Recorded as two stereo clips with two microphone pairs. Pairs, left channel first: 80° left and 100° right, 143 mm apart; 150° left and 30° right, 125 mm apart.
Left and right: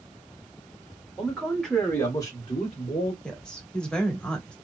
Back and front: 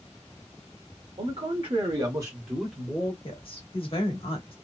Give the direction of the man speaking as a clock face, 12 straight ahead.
1 o'clock.